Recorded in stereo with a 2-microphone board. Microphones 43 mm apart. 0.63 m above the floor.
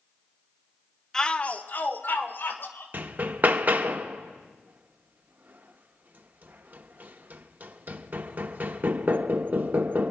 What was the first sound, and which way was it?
A shout, 10° left (ahead or behind).